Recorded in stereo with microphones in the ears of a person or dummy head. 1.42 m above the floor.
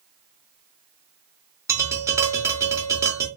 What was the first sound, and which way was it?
Tapping, 10° right (ahead or behind).